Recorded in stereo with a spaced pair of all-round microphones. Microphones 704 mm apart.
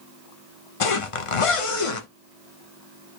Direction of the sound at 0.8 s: 50° left (ahead or behind).